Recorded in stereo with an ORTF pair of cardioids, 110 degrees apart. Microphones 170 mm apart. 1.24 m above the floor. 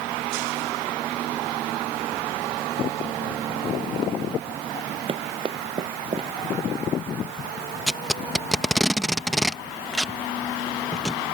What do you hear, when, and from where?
5.1 s running footsteps: 30° right
7.9 s tape being pulled: straight ahead